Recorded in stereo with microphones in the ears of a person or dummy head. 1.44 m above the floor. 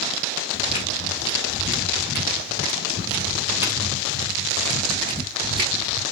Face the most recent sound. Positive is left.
turn(degrees=-30)  # may be behind; listen again after turning